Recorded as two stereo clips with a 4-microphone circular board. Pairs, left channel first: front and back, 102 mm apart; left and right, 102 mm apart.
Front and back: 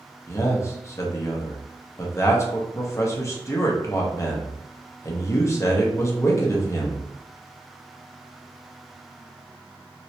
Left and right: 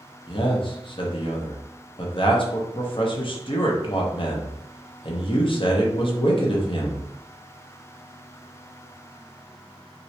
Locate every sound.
0.3 s a man speaking: 60° left, 0.8 m